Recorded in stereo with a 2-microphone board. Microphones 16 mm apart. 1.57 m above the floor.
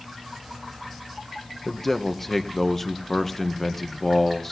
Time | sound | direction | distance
1.6 | a man speaking | 20° left (ahead or behind) | 1.6 m